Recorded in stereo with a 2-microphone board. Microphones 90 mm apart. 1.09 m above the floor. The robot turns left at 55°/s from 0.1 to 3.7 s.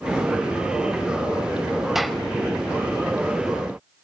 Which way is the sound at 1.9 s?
5° right (ahead or behind).